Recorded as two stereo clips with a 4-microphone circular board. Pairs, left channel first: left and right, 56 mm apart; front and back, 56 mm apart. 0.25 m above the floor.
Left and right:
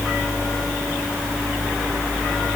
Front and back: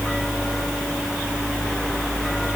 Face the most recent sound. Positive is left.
No sound to turn to.